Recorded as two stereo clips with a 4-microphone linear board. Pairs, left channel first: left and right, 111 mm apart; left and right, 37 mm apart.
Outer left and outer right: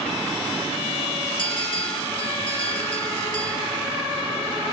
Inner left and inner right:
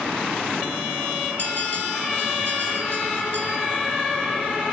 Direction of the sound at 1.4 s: 50° left (ahead or behind).